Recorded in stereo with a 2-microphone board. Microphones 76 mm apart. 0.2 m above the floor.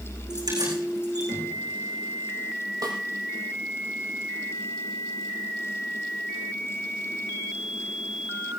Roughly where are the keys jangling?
Right.